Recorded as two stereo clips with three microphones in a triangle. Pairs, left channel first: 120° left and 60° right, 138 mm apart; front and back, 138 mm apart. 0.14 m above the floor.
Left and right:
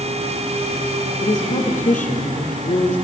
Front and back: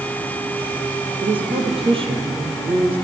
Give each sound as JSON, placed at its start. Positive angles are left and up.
{"t": 1.2, "sound": "a woman speaking", "azimuth_deg": 130, "distance_m": 3.5}